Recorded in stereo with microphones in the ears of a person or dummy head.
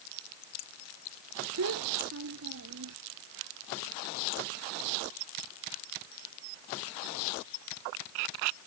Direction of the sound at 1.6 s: 80° right.